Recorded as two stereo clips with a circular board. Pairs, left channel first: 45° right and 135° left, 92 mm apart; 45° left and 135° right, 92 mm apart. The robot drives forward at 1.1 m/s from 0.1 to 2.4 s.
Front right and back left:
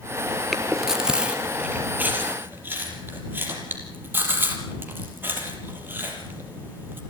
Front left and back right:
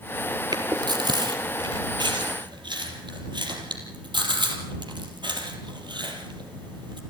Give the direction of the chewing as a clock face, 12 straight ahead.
4 o'clock.